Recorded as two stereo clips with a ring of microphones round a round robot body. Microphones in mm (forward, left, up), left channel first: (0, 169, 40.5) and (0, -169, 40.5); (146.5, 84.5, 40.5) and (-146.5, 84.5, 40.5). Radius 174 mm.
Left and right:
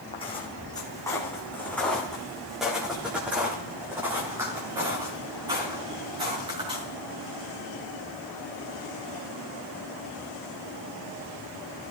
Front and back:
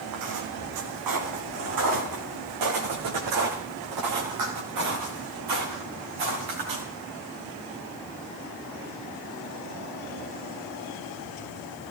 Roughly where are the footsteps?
Behind.